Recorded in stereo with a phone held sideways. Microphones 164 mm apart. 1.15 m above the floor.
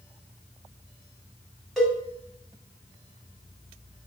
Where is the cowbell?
Centre (ahead or behind), 3 m.